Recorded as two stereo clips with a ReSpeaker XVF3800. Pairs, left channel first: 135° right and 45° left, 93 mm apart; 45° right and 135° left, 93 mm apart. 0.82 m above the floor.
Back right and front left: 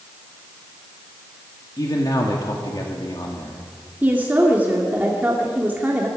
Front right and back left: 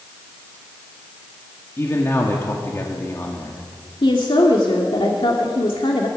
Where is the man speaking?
100° right, 1.9 m.